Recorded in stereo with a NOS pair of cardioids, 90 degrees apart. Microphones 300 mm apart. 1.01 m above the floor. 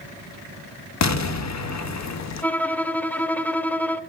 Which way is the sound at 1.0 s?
65° left.